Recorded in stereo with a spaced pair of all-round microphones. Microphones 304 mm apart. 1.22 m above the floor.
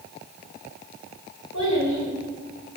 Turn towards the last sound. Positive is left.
turn(degrees=70)  # may be behind; listen again after turning